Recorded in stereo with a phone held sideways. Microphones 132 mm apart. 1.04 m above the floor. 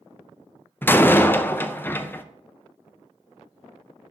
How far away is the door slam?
About 0.5 m.